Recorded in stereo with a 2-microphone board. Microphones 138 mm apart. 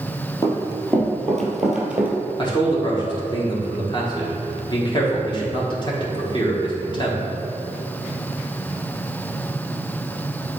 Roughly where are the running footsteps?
Left.